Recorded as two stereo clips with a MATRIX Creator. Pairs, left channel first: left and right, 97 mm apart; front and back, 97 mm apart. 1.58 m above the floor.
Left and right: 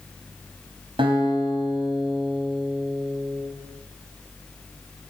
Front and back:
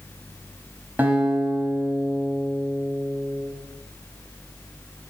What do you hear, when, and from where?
1.0 s a guitar: 110° right, 5.5 m